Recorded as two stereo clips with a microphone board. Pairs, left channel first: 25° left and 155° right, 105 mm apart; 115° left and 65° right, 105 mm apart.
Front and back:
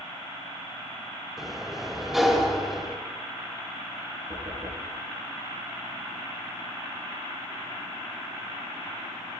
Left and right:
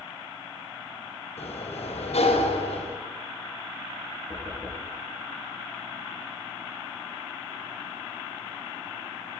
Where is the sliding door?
115° left, 2.5 m.